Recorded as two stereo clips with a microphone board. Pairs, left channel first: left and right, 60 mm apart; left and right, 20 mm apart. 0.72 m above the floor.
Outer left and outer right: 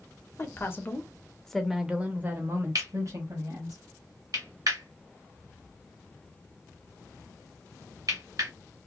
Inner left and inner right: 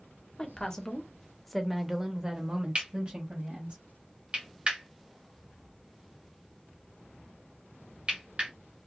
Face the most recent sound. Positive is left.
turn(degrees=-70)  # may be behind; listen again after turning